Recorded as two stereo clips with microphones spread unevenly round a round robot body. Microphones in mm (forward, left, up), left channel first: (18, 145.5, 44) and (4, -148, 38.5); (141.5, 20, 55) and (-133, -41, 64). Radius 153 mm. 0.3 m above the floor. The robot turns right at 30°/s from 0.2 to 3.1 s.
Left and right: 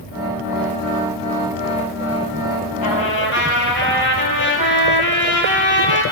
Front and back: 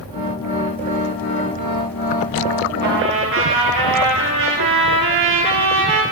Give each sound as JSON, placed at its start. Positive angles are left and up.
{"t": 2.8, "sound": "a trumpet", "azimuth_deg": 135, "distance_m": 1.5}